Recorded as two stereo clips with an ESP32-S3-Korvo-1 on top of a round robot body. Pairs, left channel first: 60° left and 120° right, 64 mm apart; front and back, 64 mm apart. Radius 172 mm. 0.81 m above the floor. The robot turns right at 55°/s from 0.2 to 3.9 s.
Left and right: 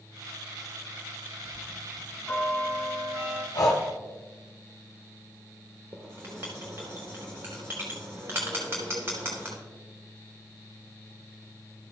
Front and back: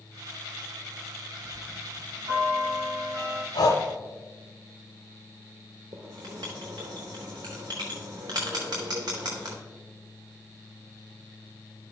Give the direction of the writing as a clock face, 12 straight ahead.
6 o'clock.